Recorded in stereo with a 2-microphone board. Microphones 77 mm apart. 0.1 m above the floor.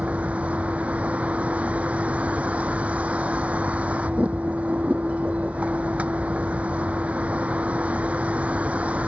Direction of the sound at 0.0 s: 15° right (ahead or behind).